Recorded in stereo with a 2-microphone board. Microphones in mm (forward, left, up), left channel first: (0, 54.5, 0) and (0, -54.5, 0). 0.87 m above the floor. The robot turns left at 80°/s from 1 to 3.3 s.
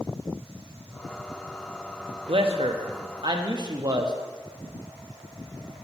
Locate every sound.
2.3 s a man speaking: 55° right, 0.8 m; by 4.2 s 135° right, 0.8 m